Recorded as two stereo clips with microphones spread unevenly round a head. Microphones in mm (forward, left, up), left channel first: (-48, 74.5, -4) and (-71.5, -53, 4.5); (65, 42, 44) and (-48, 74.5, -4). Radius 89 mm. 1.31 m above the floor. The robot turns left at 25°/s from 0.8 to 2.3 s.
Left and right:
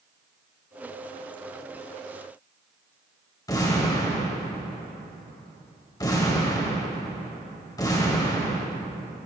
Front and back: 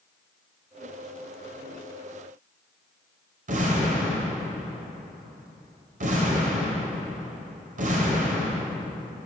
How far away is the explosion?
About 3.5 m.